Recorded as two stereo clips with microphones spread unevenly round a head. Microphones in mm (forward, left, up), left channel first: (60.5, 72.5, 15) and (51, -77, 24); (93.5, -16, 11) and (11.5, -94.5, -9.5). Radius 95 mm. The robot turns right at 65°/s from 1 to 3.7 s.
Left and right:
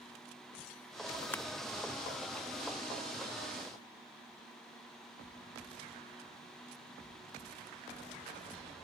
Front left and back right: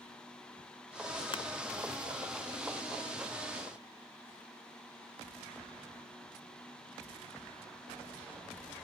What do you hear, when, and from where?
1.3 s crushing: 10° left, 0.6 m; by 1.4 s 15° left, 0.6 m